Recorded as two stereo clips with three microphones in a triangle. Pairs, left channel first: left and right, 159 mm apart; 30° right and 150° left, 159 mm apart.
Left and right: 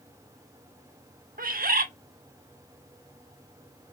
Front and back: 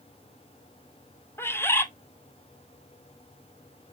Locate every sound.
1.4 s a bird: 105° right, 0.8 m